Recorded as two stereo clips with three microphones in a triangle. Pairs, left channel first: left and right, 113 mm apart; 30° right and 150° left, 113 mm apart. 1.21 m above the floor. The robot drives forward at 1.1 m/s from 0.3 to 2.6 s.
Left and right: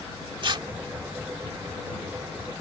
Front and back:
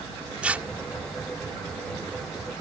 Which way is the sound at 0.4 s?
130° right.